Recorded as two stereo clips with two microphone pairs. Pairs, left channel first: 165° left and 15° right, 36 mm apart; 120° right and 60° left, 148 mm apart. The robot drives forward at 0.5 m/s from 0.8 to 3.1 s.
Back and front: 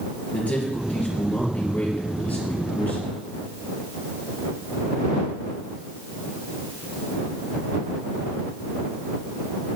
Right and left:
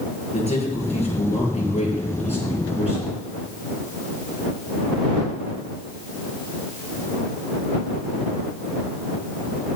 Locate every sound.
0.3 s a man speaking: 155° right, 4.5 m; by 3.2 s 160° right, 5.5 m